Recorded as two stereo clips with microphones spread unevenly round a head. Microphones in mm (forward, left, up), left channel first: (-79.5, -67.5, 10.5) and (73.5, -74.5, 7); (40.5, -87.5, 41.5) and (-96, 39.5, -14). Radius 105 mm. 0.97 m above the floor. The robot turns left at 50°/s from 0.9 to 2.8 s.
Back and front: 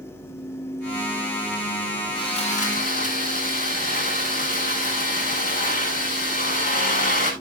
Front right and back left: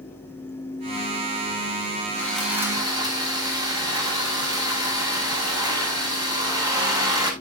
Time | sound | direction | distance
2.1 | sawing | 120° right | 7 m